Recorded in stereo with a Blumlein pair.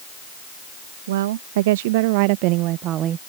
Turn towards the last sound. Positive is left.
turn(degrees=-25)